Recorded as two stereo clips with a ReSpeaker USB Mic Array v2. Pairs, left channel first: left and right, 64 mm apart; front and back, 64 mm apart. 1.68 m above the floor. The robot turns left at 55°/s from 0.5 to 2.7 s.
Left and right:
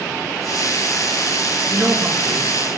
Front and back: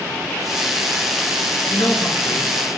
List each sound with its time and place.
1.7 s a man speaking: 10° right, 2.5 m; by 2.8 s 65° right, 2.5 m